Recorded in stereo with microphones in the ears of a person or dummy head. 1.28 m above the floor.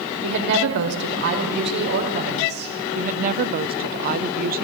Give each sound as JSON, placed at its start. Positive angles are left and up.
{"t": 0.2, "sound": "a woman speaking", "side_deg": -60, "distance_m": 4.5}
{"t": 3.0, "sound": "a woman speaking", "side_deg": -40, "distance_m": 0.9}